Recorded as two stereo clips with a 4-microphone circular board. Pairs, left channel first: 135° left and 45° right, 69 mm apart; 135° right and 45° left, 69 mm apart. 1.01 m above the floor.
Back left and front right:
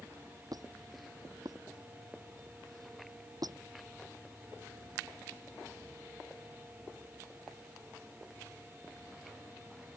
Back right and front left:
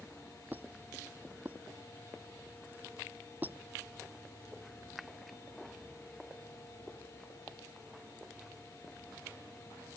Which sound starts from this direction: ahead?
A squeak, at 0.5 s.